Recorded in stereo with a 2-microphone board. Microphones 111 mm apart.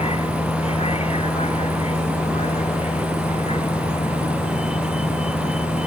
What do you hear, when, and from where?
0.0 s a vehicle: 70° left (ahead or behind)